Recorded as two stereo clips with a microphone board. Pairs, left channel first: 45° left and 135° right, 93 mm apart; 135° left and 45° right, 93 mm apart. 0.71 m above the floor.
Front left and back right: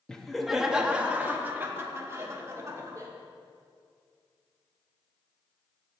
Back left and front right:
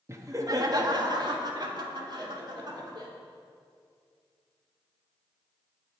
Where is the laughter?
30° right, 0.9 m; by 3.1 s 80° right, 2 m.